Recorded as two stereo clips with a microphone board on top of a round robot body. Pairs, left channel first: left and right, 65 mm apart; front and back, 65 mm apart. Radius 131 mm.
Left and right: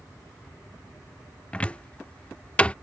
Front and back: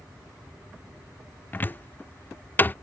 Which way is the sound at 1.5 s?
30° left.